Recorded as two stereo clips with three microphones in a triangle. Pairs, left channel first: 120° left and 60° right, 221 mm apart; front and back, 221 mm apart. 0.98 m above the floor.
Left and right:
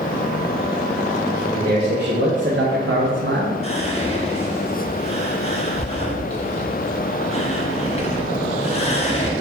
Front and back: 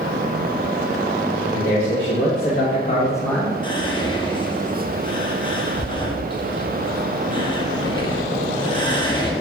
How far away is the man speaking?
About 1.2 m.